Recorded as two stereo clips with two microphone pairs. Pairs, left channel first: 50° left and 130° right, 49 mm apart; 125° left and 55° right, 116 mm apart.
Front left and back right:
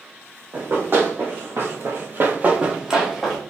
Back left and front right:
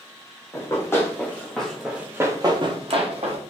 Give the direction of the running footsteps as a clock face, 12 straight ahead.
6 o'clock.